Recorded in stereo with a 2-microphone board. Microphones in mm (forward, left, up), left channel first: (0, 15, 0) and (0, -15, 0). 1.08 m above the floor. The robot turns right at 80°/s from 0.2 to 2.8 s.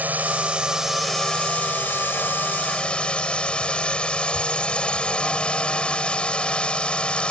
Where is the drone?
60° right; by 7.3 s 150° left.